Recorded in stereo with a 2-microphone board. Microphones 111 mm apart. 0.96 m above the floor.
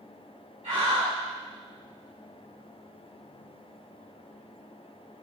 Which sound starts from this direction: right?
A scream, at 0.6 s.